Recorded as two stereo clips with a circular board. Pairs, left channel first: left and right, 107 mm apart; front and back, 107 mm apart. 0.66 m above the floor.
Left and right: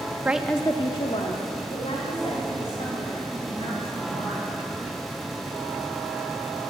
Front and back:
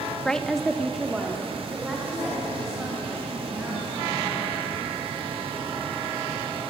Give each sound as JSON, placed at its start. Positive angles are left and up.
{"t": 0.2, "sound": "a woman speaking", "azimuth_deg": -70, "distance_m": 0.6}